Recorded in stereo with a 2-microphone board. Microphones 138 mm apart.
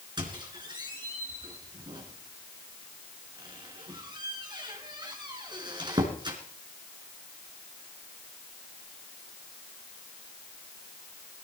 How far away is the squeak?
About 3 m.